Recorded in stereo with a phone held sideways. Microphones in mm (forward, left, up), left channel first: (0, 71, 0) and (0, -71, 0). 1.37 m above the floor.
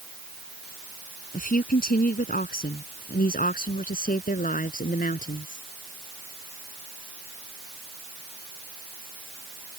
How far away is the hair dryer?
I don't hear a hair dryer.